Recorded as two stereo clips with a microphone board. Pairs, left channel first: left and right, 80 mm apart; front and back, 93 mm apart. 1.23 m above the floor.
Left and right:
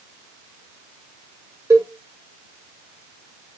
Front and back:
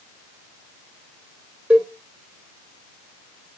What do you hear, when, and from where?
1.7 s a cowbell: 110° right, 1.1 m